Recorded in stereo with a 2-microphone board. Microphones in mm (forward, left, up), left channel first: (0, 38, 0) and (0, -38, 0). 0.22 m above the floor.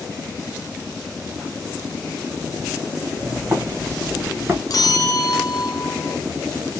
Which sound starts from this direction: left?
A bell, at 4.7 s.